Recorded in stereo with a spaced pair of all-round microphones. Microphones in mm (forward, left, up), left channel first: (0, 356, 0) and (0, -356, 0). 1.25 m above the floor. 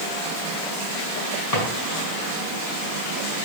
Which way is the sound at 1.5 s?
55° left (ahead or behind).